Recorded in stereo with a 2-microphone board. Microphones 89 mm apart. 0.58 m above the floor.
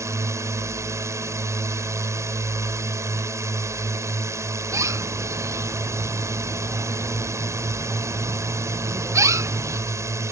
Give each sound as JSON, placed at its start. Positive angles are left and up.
{"t": 0.0, "sound": "a drone", "side_deg": -35}
{"t": 4.7, "sound": "a bird", "side_deg": -35}